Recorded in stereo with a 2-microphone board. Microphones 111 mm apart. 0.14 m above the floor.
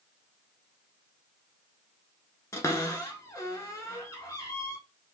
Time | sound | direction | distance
2.5 | a cupboard door | 25° left (ahead or behind) | 0.8 m